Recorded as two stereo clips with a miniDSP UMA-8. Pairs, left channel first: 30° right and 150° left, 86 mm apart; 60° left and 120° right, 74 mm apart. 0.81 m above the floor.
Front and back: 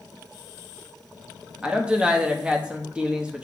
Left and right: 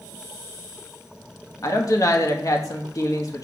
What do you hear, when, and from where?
1.6 s a woman speaking: 75° left, 1.1 m